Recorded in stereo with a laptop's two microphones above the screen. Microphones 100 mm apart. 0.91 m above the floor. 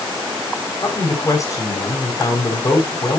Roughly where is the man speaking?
Left.